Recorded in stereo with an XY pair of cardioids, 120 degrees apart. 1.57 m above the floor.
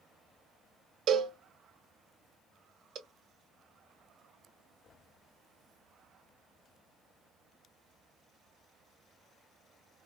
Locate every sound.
1.1 s a cowbell: 60° right, 1.3 m